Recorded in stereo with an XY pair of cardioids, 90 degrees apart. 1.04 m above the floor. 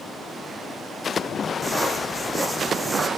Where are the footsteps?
20° right, 4 m.